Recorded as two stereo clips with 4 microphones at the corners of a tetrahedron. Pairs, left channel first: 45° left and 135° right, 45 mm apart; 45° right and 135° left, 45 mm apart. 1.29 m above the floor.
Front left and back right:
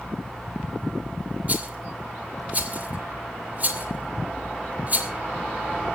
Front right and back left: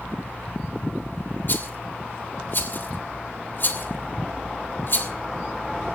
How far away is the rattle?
About 2.5 m.